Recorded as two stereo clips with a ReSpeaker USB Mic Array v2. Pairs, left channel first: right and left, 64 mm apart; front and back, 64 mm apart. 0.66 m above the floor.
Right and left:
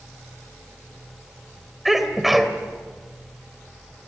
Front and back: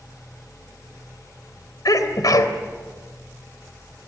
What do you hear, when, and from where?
1.9 s a sneeze: 5° left, 2.5 m